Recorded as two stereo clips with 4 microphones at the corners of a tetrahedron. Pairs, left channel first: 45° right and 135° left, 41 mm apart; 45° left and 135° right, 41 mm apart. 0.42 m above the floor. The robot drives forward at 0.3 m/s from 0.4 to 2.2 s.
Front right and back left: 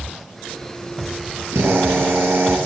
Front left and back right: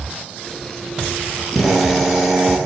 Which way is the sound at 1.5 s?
140° left.